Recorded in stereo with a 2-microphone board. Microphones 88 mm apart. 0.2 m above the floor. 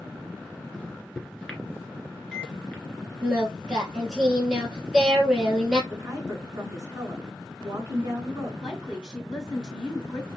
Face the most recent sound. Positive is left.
turn(degrees=-10)  # may be behind; listen again after turning